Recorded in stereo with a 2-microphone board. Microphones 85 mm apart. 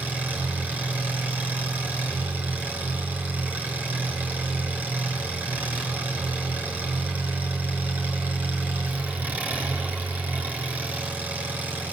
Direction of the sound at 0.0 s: 15° right (ahead or behind).